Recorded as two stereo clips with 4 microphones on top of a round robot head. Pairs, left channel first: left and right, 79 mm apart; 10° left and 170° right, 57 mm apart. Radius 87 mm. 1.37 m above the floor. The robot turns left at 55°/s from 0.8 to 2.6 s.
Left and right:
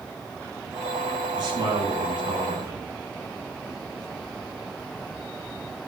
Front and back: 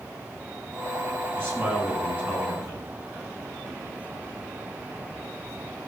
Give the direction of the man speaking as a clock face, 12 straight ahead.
2 o'clock.